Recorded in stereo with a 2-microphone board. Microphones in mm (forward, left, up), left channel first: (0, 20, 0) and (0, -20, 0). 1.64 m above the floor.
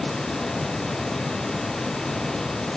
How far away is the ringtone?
No ringtone in this recording.